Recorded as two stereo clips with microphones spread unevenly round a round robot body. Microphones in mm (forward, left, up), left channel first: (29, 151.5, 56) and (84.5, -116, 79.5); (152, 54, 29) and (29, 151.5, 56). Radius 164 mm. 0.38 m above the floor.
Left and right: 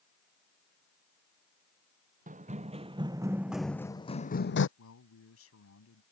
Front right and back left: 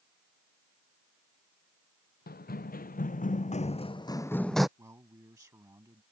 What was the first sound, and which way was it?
Running footsteps, 15° right.